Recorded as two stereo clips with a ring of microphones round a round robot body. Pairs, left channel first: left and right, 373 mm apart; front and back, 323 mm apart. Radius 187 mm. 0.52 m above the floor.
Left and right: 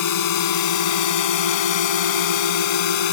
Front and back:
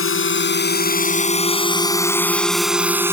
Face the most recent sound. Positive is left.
turn(degrees=100)